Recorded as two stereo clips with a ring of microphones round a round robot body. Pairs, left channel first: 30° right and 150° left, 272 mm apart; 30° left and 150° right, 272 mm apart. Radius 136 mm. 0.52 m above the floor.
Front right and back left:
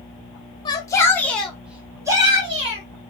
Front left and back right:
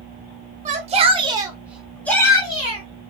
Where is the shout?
100° right, 0.9 m; by 2.8 s 90° left, 0.9 m.